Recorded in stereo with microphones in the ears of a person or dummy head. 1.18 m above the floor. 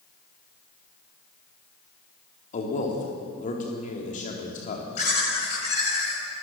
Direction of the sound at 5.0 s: 45° left (ahead or behind).